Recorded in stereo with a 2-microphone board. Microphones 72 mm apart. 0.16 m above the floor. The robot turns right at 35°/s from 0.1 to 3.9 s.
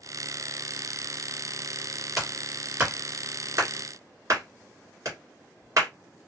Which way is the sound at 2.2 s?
Centre (ahead or behind).